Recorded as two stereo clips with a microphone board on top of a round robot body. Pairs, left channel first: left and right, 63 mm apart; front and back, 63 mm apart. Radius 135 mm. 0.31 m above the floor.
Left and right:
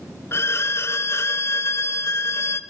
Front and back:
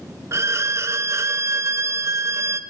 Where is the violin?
135° left, 0.8 m.